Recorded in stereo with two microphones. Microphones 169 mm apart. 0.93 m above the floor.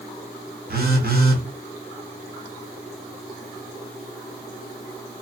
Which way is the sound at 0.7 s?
65° right (ahead or behind).